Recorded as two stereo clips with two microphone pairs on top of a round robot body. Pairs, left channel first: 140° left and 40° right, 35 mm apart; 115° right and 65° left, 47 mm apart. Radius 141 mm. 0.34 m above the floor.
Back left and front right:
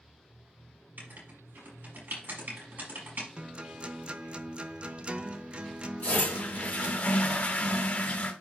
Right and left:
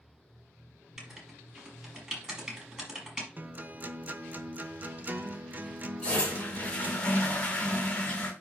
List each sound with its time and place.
1.0 s writing: 10° right, 5 m
3.4 s a guitar: 15° left, 0.8 m
6.0 s a toilet flushing: 175° left, 2 m